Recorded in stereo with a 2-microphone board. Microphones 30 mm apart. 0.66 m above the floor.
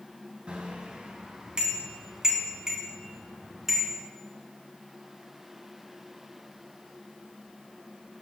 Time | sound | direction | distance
0.5 | a bicycle bell | 35° right (ahead or behind) | 3.5 m